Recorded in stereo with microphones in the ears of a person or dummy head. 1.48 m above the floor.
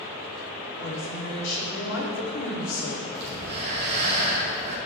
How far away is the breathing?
About 1.8 m.